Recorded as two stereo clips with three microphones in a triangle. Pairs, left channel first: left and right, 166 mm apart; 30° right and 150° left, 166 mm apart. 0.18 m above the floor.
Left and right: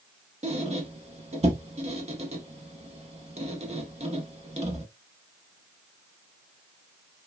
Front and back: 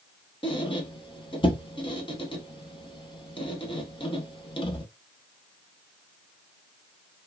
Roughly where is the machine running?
No machine running in this recording.